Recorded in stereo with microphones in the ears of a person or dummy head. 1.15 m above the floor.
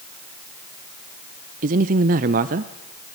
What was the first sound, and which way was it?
A man speaking, 40° right (ahead or behind).